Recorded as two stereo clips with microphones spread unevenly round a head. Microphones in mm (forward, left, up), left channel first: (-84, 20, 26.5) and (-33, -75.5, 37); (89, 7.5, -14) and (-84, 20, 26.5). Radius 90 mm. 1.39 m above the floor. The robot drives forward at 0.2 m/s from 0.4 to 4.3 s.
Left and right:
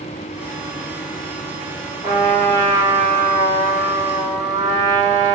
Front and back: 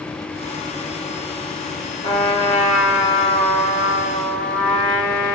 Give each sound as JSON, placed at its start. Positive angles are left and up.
{"t": 2.0, "sound": "a trumpet", "azimuth_deg": 60, "distance_m": 1.6}